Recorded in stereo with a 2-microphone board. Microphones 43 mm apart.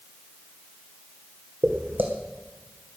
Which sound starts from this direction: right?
Footsteps, at 1.6 s.